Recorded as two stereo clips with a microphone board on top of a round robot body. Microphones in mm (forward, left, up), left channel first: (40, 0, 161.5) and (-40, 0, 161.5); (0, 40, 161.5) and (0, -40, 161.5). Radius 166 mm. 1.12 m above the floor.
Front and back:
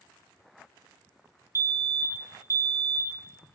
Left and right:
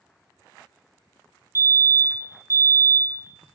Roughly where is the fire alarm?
Behind right.